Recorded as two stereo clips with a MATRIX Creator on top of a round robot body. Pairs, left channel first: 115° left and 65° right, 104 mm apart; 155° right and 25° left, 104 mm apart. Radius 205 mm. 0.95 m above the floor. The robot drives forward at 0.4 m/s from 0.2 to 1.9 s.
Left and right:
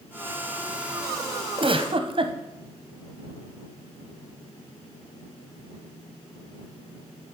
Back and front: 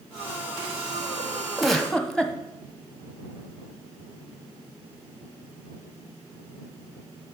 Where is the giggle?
65° right, 1.0 m; by 2.4 s 75° right, 1.0 m.